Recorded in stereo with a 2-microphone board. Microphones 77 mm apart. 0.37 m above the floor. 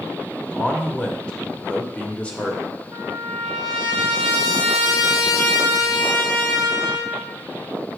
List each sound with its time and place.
0.5 s a man speaking: 15° left (ahead or behind), 0.8 m
2.9 s a trumpet: 70° left (ahead or behind), 2.5 m